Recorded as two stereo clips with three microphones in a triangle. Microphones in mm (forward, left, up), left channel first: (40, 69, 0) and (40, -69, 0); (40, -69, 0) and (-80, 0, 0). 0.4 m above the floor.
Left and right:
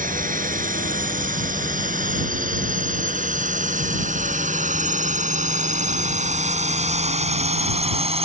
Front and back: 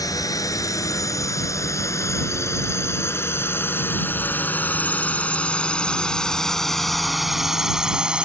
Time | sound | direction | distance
0.0 | a drone | 95° right | ?